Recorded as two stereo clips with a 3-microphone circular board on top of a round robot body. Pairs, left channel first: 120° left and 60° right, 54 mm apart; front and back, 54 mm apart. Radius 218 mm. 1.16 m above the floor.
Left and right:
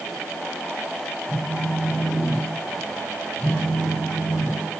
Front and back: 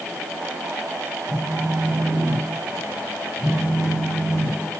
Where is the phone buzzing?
65° left, 5.5 m.